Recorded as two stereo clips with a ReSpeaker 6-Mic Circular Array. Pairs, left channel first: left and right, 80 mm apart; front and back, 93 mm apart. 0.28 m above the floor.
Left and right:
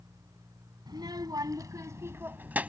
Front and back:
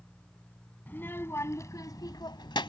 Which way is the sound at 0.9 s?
70° right.